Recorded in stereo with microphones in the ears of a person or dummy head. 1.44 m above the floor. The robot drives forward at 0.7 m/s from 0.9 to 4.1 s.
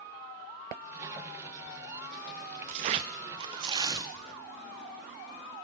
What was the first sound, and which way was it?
Tearing paper, 25° right (ahead or behind).